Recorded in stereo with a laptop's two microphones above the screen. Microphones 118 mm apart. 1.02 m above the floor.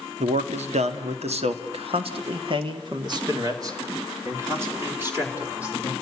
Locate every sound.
0.2 s a man speaking: 80° right, 2 m; by 5.9 s 15° right (ahead or behind), 3.5 m